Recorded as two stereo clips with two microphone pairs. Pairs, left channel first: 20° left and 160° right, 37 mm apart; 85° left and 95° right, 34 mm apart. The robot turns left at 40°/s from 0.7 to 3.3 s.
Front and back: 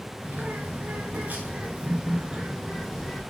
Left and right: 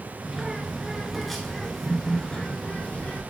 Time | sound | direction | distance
0.2 | a bird | 160° right | 2.5 m